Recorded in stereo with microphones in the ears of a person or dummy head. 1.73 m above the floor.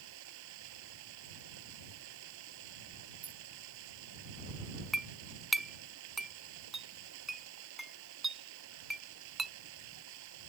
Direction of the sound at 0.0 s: 75° right (ahead or behind).